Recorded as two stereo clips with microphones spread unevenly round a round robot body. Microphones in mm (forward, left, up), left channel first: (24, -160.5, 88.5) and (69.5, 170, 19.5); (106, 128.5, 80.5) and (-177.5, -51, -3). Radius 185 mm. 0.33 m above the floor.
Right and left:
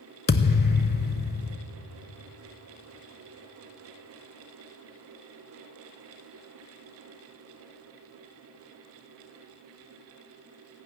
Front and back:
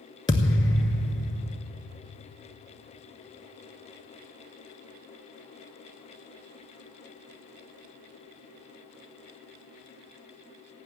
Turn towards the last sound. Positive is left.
turn(degrees=-40)